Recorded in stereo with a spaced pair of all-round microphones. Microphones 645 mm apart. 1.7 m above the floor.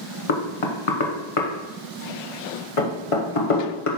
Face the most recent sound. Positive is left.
turn(degrees=55)  # may be behind; listen again after turning